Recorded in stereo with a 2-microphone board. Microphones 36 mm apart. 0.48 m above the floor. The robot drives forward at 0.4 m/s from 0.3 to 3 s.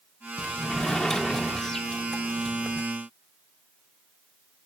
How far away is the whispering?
No whispering in this recording.